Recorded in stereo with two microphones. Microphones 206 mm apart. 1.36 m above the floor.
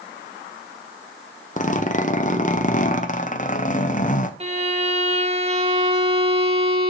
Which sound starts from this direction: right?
A violin, at 4.4 s.